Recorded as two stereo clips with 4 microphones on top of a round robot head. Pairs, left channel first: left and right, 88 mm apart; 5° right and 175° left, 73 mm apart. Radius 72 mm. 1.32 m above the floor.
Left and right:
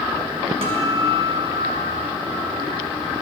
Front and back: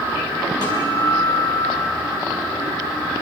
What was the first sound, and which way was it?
A guitar, 55° right.